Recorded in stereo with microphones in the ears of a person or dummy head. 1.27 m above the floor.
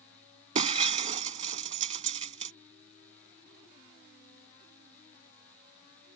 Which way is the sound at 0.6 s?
35° right (ahead or behind).